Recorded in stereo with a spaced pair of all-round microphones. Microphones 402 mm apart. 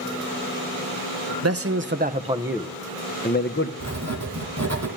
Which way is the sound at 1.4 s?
40° right (ahead or behind).